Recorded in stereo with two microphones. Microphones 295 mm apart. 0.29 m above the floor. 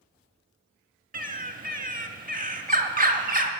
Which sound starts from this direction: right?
A bird, at 1.1 s.